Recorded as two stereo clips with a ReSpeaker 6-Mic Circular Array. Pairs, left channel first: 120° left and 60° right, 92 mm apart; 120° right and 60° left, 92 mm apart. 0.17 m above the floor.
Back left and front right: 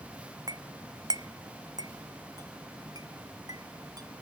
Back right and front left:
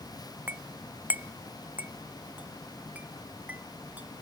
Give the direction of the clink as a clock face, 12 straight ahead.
12 o'clock.